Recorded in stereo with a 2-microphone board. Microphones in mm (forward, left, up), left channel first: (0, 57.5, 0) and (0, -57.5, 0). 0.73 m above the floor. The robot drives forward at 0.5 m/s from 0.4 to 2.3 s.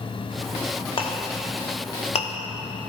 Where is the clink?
45° left (ahead or behind), 0.8 m; by 2.3 s 60° left (ahead or behind), 0.7 m.